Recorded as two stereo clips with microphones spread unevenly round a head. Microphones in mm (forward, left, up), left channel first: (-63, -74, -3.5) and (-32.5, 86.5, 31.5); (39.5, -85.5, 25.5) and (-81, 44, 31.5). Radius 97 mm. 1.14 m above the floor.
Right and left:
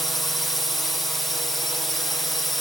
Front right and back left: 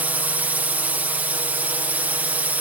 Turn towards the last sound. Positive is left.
turn(degrees=-155)